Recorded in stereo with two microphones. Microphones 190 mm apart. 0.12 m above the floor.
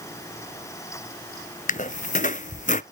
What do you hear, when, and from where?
1.7 s a squeak: 45° left (ahead or behind), 0.5 m